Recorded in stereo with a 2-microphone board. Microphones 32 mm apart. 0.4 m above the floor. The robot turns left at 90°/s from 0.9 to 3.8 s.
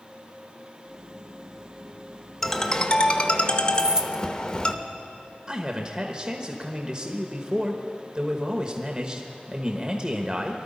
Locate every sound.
2.4 s a ringtone: 170° left, 0.8 m; by 4.7 s 45° left, 0.8 m
3.7 s keys jangling: 25° right (ahead or behind), 0.5 m
5.5 s a man speaking: 30° right (ahead or behind), 1.1 m